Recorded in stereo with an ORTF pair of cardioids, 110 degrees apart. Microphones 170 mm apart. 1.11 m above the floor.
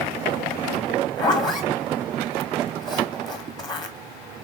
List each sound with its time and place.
1.2 s a zipper: 25° left, 1.2 m